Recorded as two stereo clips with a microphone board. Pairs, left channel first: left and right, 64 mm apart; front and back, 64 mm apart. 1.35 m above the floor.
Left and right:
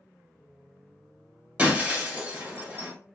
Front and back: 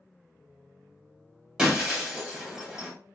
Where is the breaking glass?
115° right, 1.2 m.